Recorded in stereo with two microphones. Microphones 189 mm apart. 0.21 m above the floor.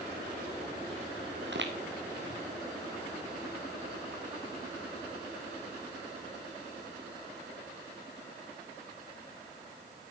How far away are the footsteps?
About 2 m.